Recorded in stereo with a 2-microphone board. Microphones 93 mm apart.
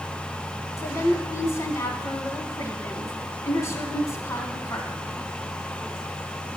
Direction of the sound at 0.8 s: 30° left (ahead or behind).